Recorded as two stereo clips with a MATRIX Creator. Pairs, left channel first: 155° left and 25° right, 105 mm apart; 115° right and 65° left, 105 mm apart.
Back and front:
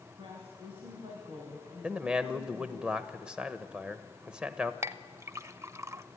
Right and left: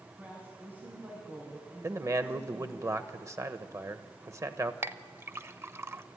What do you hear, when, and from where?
0.2 s a woman speaking: straight ahead, 3.5 m
1.8 s a man speaking: 50° left, 0.9 m
4.8 s a clink: 15° left, 0.5 m